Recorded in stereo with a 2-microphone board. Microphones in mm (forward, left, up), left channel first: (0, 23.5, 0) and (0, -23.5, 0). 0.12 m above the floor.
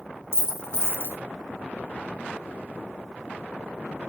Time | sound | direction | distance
0.3 | a dropped coin | 65° left (ahead or behind) | 1.2 m